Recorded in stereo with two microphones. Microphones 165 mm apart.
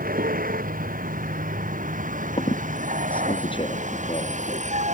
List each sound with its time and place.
0.0 s a vehicle: 60° right (ahead or behind); by 5.0 s 45° right (ahead or behind)
2.4 s a squeak: 30° left (ahead or behind)